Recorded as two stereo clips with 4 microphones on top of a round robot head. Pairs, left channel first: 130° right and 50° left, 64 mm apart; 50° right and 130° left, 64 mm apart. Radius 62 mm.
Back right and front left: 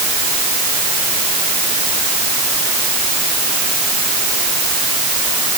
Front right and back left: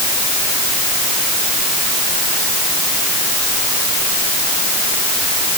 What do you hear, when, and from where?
Only background noise.